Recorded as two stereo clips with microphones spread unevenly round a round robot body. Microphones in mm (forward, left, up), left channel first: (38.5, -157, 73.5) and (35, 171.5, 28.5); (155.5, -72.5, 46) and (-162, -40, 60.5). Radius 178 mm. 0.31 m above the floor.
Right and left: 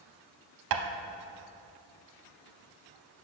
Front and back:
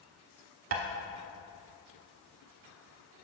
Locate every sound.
0.7 s tapping: 120° left, 0.7 m